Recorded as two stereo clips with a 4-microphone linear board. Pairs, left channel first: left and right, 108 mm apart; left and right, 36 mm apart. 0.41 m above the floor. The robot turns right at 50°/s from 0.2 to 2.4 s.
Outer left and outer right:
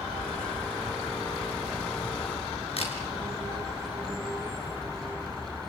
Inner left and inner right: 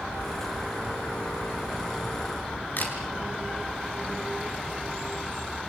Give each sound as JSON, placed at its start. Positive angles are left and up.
{"t": 2.8, "sound": "a camera shutter", "side_deg": 60, "distance_m": 5.0}